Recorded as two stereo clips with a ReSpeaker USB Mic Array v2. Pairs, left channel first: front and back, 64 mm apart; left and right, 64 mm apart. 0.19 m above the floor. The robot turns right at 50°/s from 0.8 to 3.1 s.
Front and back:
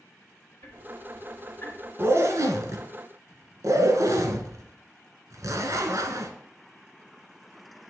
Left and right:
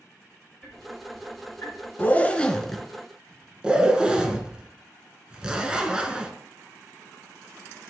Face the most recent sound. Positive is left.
turn(degrees=-165)